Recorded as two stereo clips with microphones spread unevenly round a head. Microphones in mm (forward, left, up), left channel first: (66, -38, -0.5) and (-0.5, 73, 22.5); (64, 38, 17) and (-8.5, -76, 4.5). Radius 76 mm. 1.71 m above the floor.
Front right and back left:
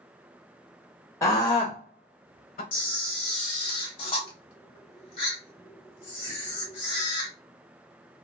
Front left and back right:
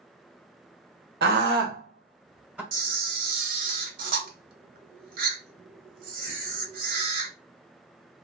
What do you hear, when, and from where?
1.2 s a scream: 135° right, 1.0 m; by 2.6 s 40° right, 0.9 m
2.7 s a camera shutter: 115° right, 0.9 m